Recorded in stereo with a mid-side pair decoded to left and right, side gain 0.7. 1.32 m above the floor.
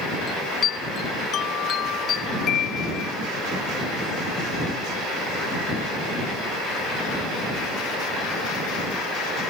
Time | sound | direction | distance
0.3 | a chime | 45° left | ?